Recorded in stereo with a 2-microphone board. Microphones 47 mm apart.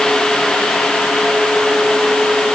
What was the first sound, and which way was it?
Only background noise.